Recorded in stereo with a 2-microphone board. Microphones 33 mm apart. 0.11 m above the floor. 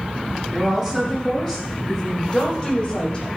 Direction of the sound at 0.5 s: Centre (ahead or behind).